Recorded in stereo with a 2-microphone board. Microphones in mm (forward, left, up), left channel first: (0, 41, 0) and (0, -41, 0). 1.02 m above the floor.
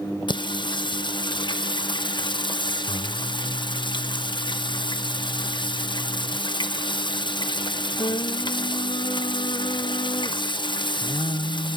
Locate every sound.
0.3 s singing: 65° left (ahead or behind), 0.7 m